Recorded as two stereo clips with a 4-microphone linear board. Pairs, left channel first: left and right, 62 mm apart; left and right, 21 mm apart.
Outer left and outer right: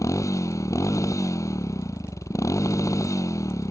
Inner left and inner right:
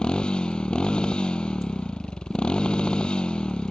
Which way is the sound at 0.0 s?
55° left (ahead or behind).